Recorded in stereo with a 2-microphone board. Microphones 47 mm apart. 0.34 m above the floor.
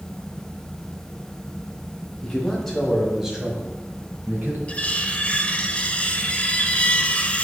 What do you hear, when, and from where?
2.2 s a man speaking: 15° left (ahead or behind), 2.5 m; by 4.6 s 45° right (ahead or behind), 2 m
4.7 s cutlery clinking: 25° left (ahead or behind), 0.5 m